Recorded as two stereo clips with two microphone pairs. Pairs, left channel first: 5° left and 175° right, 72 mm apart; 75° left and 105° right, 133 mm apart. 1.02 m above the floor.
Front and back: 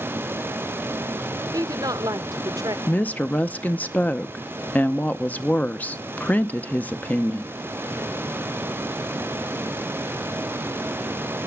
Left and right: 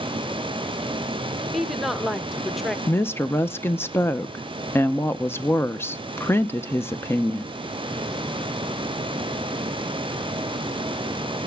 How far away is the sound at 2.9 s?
About 0.6 m.